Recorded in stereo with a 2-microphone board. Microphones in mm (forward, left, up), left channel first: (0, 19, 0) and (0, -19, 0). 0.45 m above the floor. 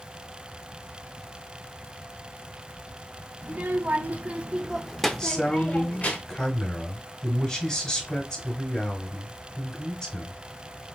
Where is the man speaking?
20° left (ahead or behind), 1.5 m.